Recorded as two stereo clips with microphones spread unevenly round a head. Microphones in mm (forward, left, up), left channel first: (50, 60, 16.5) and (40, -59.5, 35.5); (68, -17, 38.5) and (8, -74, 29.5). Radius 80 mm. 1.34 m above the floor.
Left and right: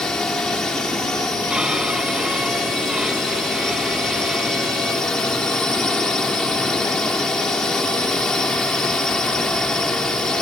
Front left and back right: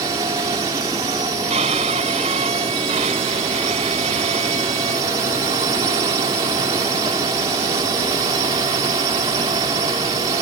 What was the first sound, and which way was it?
A drone, 170° left.